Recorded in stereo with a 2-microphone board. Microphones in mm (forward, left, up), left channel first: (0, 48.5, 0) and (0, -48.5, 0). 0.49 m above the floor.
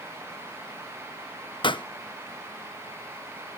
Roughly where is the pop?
Left.